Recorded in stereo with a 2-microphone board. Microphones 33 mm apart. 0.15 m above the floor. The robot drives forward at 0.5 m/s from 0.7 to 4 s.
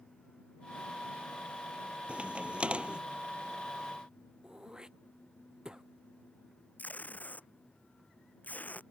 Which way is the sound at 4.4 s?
20° right (ahead or behind).